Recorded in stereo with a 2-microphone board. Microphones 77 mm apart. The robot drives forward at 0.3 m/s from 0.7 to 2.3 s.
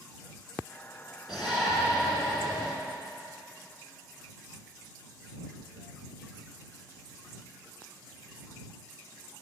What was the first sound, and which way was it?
A shout, 10° right (ahead or behind).